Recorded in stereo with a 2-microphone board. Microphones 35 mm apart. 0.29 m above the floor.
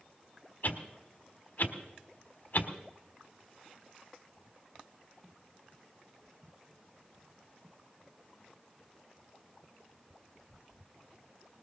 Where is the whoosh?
55° left (ahead or behind), 1.4 m.